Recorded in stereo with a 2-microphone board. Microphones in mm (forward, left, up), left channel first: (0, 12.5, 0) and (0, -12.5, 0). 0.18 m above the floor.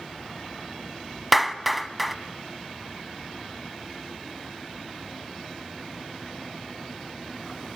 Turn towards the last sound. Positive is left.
turn(degrees=0)  # may be behind; listen again after turning